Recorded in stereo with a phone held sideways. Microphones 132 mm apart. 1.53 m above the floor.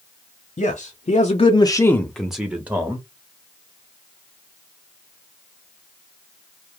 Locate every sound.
0.6 s a man speaking: 80° left, 0.7 m; by 3.0 s 20° right (ahead or behind), 1.0 m